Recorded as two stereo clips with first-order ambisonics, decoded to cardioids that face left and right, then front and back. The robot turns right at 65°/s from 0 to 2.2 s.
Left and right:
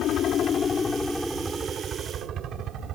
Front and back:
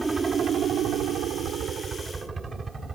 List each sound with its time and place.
0.0 s a helicopter: 105° left; by 3.0 s 110° right